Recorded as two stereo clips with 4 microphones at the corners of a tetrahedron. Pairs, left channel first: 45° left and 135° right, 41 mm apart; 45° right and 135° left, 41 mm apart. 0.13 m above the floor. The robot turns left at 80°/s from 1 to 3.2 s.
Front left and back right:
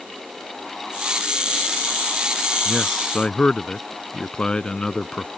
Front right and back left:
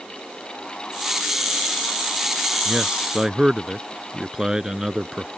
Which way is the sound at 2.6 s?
130° left.